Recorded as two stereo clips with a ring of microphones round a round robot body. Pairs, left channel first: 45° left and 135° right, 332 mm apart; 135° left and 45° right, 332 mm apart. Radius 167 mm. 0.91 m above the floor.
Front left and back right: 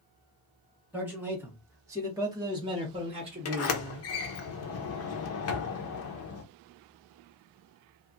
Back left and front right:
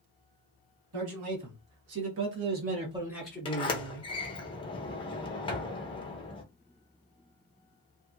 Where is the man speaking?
50° right, 1.8 m; by 4.1 s 165° left, 1.1 m.